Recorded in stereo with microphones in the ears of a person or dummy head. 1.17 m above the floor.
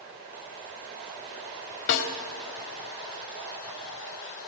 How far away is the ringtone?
No ringtone in this recording.